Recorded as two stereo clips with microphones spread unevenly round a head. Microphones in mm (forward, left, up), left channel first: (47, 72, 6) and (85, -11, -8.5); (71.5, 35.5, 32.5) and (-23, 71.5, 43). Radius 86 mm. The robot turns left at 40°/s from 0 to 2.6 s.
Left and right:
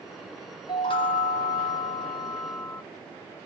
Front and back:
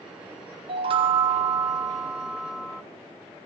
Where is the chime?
150° left, 0.5 m; by 2.8 s 75° left, 0.5 m.